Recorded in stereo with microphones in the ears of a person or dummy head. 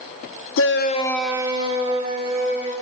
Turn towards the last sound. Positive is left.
turn(degrees=-40)  # may be behind; listen again after turning